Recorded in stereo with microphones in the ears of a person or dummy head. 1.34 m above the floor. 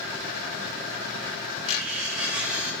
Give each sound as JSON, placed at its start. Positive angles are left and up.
{"t": 1.7, "sound": "cutlery clinking", "side_deg": -5, "distance_m": 0.6}